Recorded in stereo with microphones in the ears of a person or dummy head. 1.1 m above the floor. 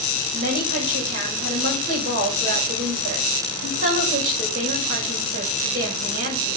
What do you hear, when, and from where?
0.3 s a woman speaking: 40° right (ahead or behind), 5 m